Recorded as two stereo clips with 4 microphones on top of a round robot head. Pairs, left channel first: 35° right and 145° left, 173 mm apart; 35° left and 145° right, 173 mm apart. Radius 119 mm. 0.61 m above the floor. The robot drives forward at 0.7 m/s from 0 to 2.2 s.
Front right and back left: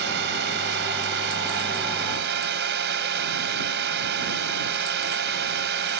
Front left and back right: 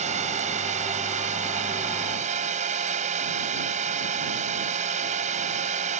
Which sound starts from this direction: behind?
A drone, at 0.0 s.